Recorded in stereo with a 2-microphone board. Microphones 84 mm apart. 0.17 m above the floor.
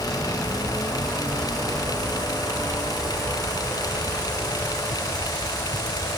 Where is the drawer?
I don't hear a drawer.